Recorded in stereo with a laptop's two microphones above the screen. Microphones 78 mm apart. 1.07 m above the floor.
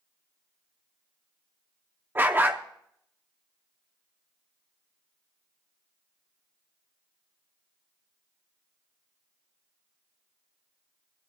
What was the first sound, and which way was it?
A dog barking, 30° right (ahead or behind).